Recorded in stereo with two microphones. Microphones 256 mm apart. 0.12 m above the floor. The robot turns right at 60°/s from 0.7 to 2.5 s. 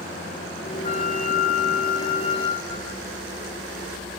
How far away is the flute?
About 1.1 m.